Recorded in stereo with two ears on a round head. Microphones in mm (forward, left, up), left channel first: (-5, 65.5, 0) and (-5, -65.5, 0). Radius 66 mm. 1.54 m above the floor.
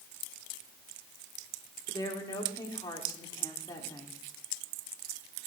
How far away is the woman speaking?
About 3.5 m.